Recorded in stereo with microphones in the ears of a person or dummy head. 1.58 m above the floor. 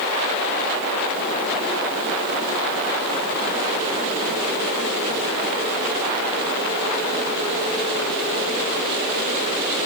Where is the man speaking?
No man speaking in this recording.